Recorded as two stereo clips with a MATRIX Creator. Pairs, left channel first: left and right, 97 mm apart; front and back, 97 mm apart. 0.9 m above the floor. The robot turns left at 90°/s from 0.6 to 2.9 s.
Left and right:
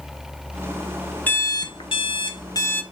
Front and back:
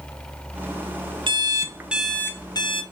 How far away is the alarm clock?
About 0.6 m.